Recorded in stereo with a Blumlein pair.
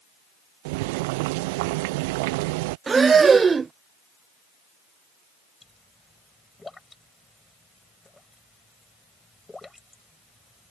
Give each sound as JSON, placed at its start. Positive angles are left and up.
{"t": 0.7, "sound": "boiling", "azimuth_deg": -50}
{"t": 2.9, "sound": "breathing", "azimuth_deg": -15}
{"t": 5.6, "sound": "a pop", "azimuth_deg": 10}